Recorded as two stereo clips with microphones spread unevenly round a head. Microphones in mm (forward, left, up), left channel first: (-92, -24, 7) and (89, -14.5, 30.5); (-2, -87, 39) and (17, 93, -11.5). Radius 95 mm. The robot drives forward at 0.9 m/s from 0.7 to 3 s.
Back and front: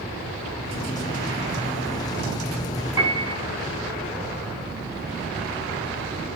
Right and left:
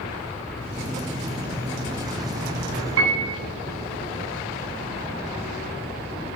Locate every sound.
3.0 s a piano: 90° left, 7.5 m